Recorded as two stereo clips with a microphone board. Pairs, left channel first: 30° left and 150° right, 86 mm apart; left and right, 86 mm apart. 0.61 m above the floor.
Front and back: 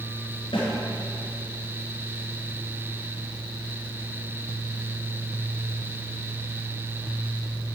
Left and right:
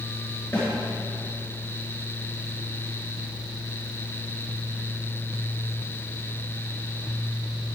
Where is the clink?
No clink in this recording.